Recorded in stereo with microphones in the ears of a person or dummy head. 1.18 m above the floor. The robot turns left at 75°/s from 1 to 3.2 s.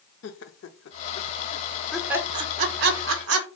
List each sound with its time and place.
0.2 s laughter: 65° left (ahead or behind), 0.6 m; by 3.5 s 70° right (ahead or behind), 0.6 m